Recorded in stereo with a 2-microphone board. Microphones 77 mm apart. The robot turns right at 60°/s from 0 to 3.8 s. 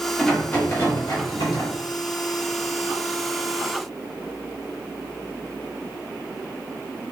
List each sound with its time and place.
0.2 s a rattle: 5° left, 1.0 m; by 1.7 s 95° left, 1.0 m